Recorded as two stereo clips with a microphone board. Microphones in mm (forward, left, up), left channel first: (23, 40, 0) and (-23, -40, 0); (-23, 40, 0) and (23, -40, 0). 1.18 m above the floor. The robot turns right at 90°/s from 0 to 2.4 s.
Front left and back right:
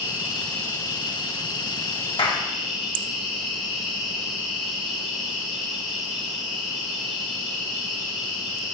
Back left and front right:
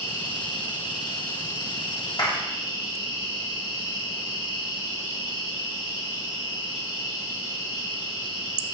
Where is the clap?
80° left, 1.4 m; by 2.4 s 100° left, 1.4 m.